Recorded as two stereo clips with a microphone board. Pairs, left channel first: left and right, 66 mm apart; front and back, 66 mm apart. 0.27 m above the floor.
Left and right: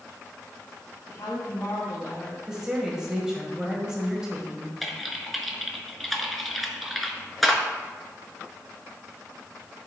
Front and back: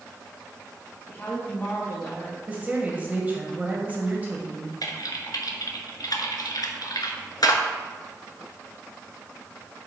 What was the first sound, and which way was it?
A woman speaking, 60° left.